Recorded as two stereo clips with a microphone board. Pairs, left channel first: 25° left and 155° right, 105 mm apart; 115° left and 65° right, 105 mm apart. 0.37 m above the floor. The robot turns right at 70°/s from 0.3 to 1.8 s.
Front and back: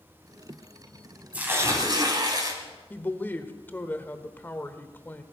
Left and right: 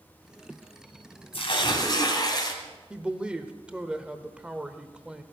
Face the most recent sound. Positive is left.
turn(degrees=-5)